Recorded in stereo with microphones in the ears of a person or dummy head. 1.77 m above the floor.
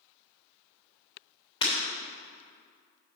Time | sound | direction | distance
1.6 | breaking glass | 30° left (ahead or behind) | 2.5 m